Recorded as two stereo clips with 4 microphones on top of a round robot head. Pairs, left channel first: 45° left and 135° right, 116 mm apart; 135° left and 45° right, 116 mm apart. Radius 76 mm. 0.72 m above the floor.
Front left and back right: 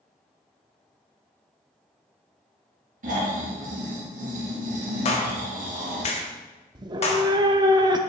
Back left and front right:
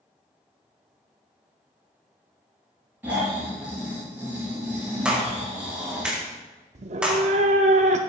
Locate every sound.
3.0 s snoring: 120° right, 2.5 m
5.0 s a clap: 35° left, 1.5 m
6.8 s a cat meowing: 80° right, 0.6 m